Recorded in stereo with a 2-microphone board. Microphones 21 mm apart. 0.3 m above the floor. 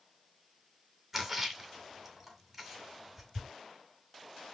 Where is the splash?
20° right (ahead or behind), 2 m.